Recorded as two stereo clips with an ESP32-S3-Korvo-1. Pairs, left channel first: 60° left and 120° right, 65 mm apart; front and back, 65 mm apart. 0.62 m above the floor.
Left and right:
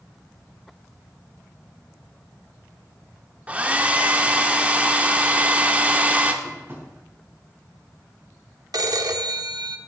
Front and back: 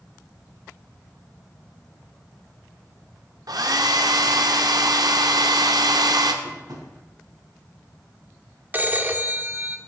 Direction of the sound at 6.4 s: 170° right.